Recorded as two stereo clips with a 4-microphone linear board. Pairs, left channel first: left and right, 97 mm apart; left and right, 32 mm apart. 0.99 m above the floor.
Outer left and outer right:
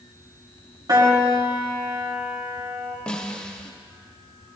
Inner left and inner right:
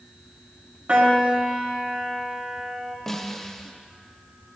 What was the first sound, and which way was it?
A piano, 45° right (ahead or behind).